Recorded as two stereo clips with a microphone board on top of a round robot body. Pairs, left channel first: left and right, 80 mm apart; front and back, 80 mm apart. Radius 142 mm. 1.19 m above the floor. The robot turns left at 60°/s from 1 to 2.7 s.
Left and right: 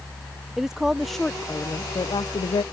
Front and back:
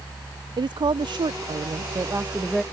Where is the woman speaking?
175° right; by 2.6 s 85° left.